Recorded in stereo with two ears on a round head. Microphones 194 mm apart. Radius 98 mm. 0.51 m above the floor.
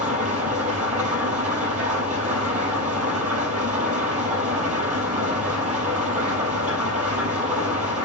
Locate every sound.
0.0 s an engine running: 35° right (ahead or behind), 4.5 m